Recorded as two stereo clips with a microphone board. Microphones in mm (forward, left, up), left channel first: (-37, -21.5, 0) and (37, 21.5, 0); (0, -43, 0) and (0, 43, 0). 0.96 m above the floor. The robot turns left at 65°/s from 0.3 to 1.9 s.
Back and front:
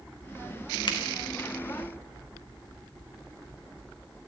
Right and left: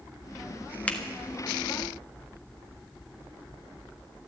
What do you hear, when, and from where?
0.9 s a finger snap: 165° right, 1.6 m; by 1.0 s 170° right, 1.6 m